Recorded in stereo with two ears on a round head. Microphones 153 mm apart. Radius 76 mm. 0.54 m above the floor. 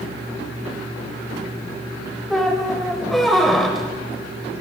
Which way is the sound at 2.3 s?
Centre (ahead or behind).